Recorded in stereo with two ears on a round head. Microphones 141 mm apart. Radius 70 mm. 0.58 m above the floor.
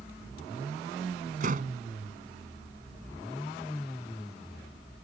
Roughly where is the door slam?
Right.